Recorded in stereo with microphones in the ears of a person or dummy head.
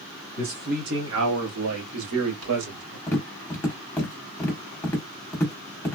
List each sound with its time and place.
0.4 s a man speaking: 40° right (ahead or behind), 1.4 m; by 3.0 s 85° right, 2.5 m
3.1 s tapping: 10° left (ahead or behind), 1.2 m